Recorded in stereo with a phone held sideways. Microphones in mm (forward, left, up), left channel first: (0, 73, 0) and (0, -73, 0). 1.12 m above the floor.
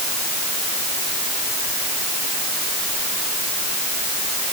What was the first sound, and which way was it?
Only background noise.